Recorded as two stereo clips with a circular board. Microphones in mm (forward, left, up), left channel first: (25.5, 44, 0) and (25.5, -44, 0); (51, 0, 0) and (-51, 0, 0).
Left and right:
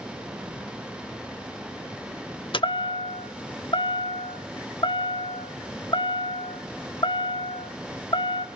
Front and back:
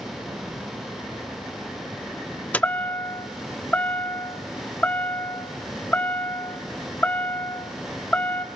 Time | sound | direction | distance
2.5 | a chime | 75° left | 0.7 m